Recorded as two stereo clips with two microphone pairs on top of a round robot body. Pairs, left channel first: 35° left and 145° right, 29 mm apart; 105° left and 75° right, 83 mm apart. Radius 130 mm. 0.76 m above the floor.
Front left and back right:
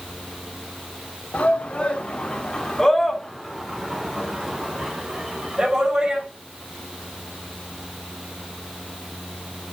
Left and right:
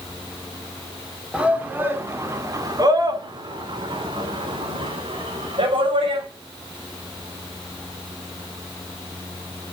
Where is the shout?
Straight ahead, 3 m; by 6.2 s 80° right, 5.5 m.